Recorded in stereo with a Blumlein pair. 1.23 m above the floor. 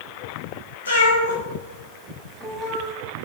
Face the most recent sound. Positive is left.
turn(degrees=-30)